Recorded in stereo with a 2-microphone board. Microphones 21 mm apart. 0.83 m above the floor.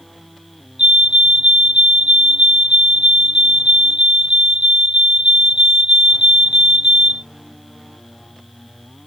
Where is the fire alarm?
60° right (ahead or behind).